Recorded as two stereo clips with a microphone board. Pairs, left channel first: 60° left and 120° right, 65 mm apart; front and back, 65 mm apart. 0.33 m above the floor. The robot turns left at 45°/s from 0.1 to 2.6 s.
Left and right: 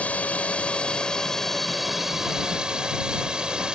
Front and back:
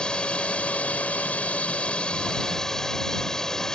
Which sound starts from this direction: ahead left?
A drone, at 0.0 s.